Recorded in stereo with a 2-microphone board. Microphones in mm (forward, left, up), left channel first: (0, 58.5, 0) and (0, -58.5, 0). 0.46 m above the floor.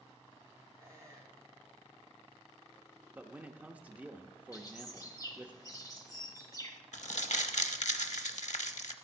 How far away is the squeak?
About 2.5 m.